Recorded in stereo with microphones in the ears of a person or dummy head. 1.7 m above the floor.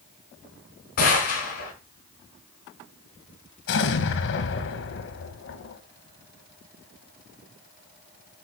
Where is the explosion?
60° left (ahead or behind), 1.3 m.